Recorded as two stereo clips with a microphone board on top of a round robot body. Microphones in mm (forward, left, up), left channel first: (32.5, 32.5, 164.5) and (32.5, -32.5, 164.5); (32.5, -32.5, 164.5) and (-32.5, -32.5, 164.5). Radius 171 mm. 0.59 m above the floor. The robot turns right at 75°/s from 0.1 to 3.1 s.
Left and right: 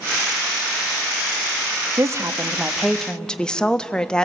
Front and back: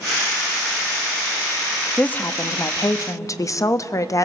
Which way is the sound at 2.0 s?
70° right.